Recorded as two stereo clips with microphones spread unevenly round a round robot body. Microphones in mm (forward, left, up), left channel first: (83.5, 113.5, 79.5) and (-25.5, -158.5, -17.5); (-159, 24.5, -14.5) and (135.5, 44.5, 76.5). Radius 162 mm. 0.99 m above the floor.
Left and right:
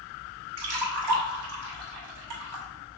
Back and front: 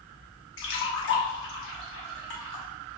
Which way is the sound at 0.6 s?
120° right.